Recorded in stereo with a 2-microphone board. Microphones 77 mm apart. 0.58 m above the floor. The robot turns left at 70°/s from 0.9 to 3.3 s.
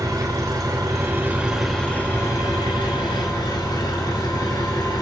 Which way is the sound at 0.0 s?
125° right.